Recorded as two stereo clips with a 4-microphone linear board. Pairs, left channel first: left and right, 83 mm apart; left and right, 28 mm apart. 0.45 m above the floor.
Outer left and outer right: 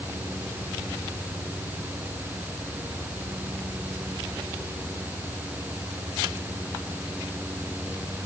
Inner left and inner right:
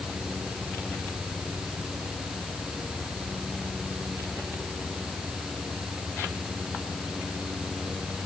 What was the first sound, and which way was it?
Only background noise.